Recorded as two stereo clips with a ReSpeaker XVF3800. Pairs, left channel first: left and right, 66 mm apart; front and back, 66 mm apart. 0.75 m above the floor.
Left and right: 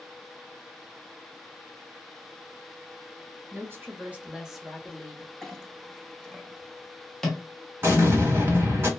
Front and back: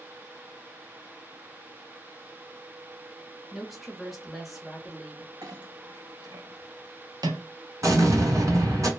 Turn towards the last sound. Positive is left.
turn(degrees=-145)